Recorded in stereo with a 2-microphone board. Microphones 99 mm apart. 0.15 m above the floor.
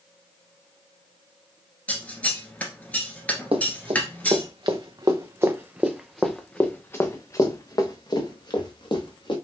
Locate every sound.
1.9 s scissors: 15° left (ahead or behind), 1.3 m
3.5 s running footsteps: 70° right (ahead or behind), 1.4 m; by 9.3 s 55° left (ahead or behind), 2.0 m